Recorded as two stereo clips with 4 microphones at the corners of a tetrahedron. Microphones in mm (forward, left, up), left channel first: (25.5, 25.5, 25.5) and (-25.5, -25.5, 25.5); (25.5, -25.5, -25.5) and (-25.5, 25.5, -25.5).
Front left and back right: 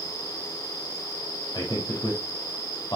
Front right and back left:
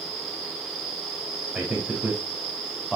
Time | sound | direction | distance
1.5 | a man speaking | 55° left | 4.5 m